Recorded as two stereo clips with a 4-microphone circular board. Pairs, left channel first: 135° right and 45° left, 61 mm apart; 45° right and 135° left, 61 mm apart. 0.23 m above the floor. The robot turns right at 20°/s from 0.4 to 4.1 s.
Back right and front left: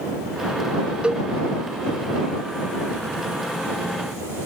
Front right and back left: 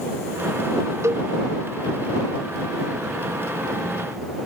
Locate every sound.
1.0 s a cowbell: 115° left; by 1.3 s 120° left